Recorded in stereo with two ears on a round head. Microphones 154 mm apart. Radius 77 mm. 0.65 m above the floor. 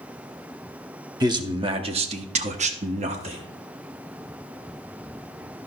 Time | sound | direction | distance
1.2 | a man speaking | 20° right (ahead or behind) | 1.0 m